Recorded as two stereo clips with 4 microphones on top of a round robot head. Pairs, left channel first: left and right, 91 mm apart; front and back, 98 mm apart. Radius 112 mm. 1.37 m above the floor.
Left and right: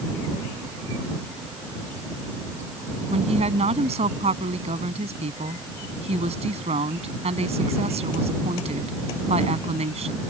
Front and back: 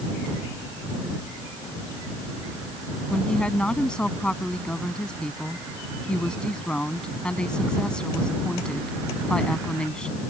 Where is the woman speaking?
80° right.